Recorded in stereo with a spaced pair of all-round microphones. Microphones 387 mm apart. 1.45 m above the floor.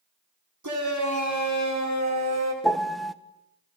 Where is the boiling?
I don't hear boiling.